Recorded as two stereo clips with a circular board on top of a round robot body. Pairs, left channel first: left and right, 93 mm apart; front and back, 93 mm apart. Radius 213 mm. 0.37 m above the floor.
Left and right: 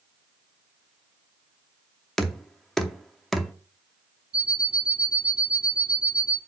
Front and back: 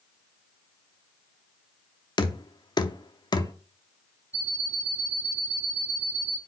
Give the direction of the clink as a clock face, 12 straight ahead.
I don't hear a clink.